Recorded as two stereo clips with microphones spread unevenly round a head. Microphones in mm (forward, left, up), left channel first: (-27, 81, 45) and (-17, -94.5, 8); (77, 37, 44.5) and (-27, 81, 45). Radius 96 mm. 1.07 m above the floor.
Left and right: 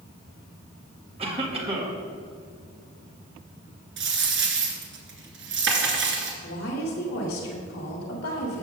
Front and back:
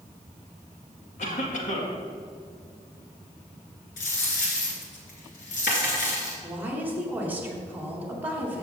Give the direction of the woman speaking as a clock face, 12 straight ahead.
9 o'clock.